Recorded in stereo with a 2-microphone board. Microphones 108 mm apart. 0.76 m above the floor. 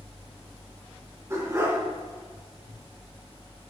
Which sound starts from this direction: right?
A dog barking, at 1.3 s.